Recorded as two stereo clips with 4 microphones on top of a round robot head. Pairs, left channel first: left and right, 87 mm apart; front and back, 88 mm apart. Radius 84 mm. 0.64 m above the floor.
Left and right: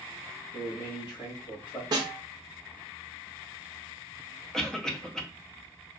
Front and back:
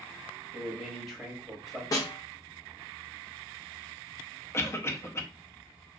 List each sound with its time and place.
0.5 s a man speaking: 90° left, 1.6 m
1.9 s a snare drum: 50° right, 0.6 m
4.5 s a cough: 10° left, 0.7 m